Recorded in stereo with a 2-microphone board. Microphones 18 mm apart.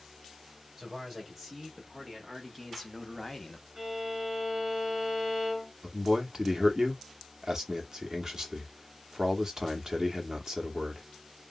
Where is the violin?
25° right (ahead or behind), 1.2 m.